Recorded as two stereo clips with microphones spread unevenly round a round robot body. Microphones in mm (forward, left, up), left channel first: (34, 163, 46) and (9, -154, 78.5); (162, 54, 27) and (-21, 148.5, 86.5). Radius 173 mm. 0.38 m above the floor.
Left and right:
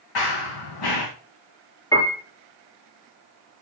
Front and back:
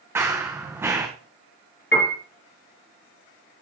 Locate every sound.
0.1 s running footsteps: 75° left, 2.5 m
1.9 s a piano: 5° left, 2.5 m